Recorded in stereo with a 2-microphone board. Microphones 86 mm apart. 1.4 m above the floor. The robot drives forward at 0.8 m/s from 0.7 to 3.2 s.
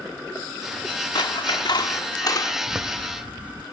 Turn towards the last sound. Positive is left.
turn(degrees=-15)  # may be behind; listen again after turning